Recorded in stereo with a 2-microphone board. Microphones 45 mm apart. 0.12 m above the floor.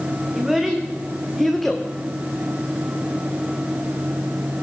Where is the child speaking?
10° right (ahead or behind), 5.5 m; by 1.9 s 5° left (ahead or behind), 3.5 m.